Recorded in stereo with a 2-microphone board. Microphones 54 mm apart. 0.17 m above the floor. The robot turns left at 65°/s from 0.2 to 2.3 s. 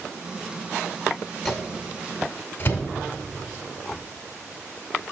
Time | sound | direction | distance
1.4 | a microwave | centre (ahead or behind) | 1.2 m